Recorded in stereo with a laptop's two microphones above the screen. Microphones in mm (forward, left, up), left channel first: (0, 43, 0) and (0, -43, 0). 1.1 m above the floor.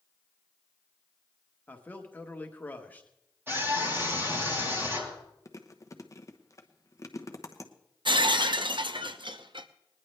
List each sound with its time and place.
1.7 s a man speaking: 20° left (ahead or behind), 1.2 m
3.5 s a scream: 25° right (ahead or behind), 6.5 m
5.5 s chewing: 35° left (ahead or behind), 0.8 m
8.1 s breaking glass: 65° right (ahead or behind), 0.7 m